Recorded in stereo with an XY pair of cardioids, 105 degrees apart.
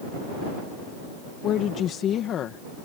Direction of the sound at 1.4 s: 70° left.